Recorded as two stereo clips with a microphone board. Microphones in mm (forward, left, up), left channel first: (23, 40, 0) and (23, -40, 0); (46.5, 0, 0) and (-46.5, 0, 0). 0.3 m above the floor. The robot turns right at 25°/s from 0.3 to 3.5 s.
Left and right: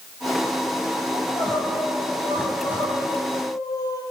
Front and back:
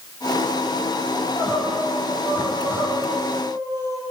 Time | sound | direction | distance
1.1 | crying | 75° left | 8 m